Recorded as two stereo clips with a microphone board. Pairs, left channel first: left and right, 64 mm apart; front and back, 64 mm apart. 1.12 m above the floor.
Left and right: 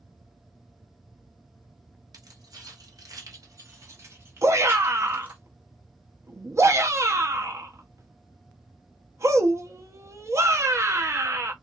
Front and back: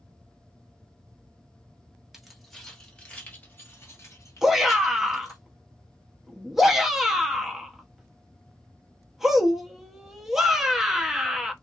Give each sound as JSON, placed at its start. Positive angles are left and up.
{"t": 2.1, "sound": "keys jangling", "azimuth_deg": -90, "distance_m": 1.2}
{"t": 4.4, "sound": "a shout", "azimuth_deg": -95, "distance_m": 0.9}